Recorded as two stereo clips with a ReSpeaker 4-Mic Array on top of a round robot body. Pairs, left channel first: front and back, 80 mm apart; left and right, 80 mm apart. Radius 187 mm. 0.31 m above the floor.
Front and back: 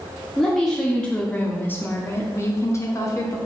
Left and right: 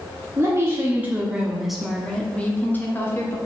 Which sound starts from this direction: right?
A woman speaking, at 0.4 s.